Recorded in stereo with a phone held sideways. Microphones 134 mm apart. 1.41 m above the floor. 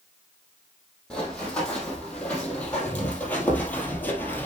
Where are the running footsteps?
5° left (ahead or behind), 3.5 m; by 4.5 s 15° left (ahead or behind), 2 m.